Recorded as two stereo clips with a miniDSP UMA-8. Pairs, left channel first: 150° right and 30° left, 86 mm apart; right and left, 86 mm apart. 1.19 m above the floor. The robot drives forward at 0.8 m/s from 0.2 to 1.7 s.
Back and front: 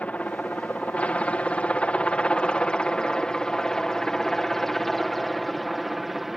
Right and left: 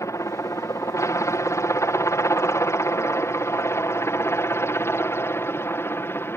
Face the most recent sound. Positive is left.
turn(degrees=-55)